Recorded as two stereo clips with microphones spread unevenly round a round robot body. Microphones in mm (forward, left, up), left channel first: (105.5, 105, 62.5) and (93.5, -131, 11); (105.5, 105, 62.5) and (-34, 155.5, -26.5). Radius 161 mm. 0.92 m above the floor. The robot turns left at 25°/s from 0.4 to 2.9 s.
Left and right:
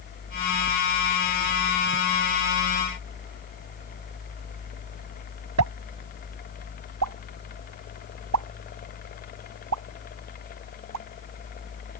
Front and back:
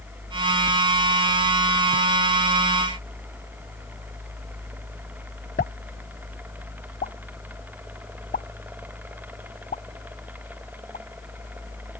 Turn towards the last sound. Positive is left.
turn(degrees=-85)